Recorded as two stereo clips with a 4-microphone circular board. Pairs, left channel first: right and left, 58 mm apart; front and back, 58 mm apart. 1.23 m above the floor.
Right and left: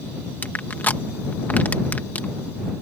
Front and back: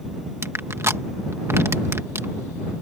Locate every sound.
0.4 s crushing: 145° right